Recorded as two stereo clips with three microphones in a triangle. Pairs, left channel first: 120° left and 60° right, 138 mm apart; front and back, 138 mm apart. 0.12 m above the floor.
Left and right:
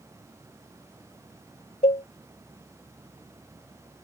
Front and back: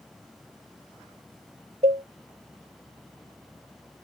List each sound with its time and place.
1.8 s a cowbell: 150° left